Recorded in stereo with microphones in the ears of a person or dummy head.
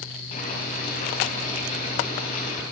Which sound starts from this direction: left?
Boiling, at 0.3 s.